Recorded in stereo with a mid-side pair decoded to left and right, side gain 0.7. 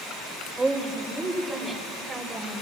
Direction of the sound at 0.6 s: 20° right.